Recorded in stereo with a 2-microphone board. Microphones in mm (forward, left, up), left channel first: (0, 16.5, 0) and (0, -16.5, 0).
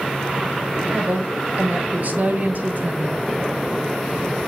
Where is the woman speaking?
55° right (ahead or behind), 1.6 m.